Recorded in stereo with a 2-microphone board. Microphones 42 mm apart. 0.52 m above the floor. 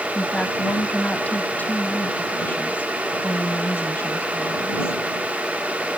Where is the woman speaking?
30° left (ahead or behind); by 5.0 s 70° left (ahead or behind).